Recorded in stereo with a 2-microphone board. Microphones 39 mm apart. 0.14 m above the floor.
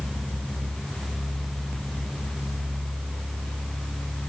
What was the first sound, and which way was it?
Only background noise.